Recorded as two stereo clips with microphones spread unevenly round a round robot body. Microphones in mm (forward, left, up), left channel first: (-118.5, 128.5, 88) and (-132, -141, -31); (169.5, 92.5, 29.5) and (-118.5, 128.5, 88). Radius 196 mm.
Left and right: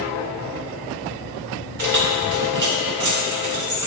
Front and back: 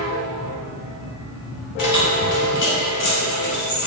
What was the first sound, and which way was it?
Keys jangling, 40° right.